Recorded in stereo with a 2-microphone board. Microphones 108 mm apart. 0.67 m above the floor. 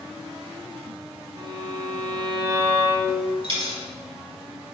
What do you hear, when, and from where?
1.4 s a violin: 40° right (ahead or behind), 0.8 m
3.4 s a dropped coin: 50° right (ahead or behind), 1.0 m